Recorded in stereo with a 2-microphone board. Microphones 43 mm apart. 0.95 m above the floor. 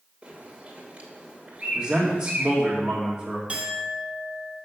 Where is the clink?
30° right (ahead or behind), 1.4 m.